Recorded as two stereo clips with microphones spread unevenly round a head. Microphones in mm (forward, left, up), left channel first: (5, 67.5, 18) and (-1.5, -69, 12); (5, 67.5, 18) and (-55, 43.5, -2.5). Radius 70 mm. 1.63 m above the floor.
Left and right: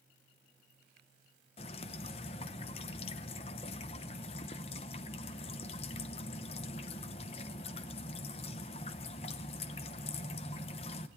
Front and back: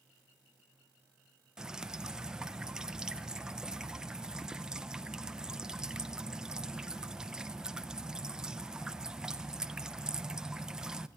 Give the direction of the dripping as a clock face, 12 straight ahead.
8 o'clock.